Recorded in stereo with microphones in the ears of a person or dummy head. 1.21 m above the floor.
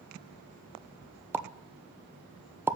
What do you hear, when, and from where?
1.3 s a pop: 10° right (ahead or behind), 0.6 m